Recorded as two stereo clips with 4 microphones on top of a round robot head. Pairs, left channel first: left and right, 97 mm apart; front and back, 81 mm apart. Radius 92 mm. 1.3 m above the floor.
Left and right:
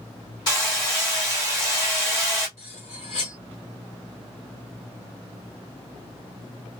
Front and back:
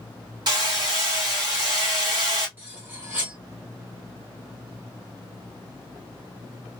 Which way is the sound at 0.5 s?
145° left.